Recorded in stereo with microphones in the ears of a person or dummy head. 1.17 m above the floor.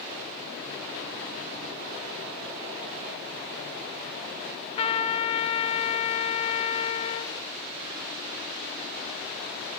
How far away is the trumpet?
About 1.1 m.